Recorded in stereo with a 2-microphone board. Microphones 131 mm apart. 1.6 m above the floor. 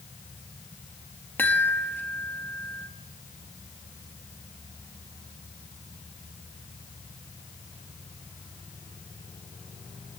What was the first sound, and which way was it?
A chime, 15° left (ahead or behind).